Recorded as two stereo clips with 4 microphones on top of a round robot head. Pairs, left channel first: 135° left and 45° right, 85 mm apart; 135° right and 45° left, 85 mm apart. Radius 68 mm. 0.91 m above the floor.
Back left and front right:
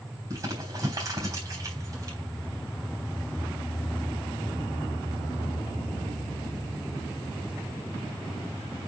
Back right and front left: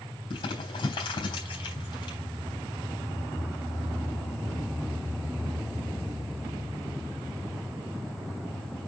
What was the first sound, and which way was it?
Crumpling, 100° right.